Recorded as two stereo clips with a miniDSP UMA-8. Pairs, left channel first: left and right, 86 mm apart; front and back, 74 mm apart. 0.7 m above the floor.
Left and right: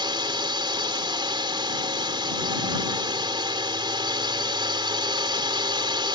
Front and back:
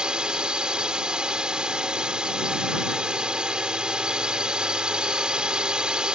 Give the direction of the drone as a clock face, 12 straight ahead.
3 o'clock.